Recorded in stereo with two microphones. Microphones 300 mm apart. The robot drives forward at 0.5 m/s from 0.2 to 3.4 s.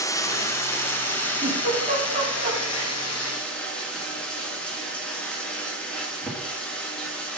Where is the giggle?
25° right (ahead or behind), 3.5 m; by 2.9 s 30° right (ahead or behind), 3 m.